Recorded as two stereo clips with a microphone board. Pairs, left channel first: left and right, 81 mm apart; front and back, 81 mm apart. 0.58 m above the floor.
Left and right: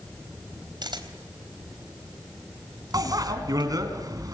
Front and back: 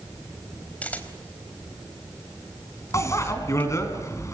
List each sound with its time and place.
0.8 s a camera shutter: 70° right, 3.5 m
2.9 s a bicycle bell: 50° right, 4 m